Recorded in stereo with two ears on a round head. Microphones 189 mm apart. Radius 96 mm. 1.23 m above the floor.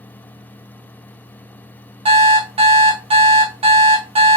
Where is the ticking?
I don't hear ticking.